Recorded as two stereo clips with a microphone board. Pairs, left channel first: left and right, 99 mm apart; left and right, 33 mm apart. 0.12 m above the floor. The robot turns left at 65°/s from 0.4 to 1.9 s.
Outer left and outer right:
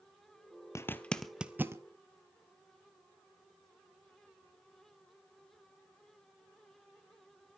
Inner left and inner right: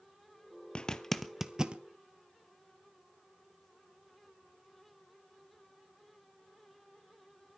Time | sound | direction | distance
0.8 | a zipper | 30° left (ahead or behind) | 0.8 m